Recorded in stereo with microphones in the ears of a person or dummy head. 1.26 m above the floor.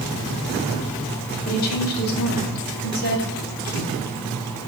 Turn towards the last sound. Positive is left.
turn(degrees=50)  # may be behind; listen again after turning